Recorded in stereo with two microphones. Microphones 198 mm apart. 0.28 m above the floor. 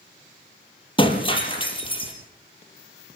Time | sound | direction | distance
1.0 | breaking glass | 25° left (ahead or behind) | 4.5 m